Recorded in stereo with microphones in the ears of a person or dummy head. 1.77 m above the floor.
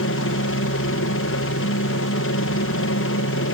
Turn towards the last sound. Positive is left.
turn(degrees=60)  # may be behind; listen again after turning